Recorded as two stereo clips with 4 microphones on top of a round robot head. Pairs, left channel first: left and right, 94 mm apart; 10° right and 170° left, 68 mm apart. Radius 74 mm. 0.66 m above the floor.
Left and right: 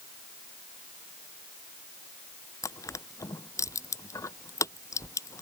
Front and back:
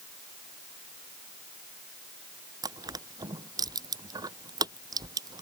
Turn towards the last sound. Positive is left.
turn(degrees=150)